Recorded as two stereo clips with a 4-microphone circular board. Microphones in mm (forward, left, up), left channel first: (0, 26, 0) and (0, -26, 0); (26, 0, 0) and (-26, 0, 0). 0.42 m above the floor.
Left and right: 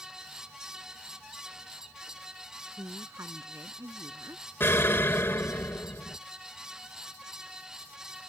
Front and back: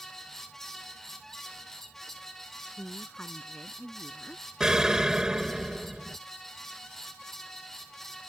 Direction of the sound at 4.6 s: 105° left.